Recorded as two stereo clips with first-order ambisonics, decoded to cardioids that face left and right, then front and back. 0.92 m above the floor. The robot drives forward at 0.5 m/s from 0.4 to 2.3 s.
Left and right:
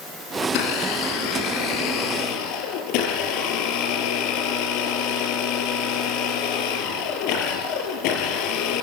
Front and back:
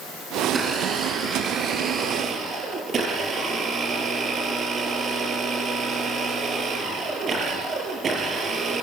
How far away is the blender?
About 3.5 m.